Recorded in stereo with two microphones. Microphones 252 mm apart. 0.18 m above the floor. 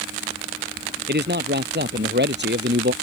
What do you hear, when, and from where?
1.1 s a man speaking: 40° right (ahead or behind); by 2.9 s 45° right (ahead or behind)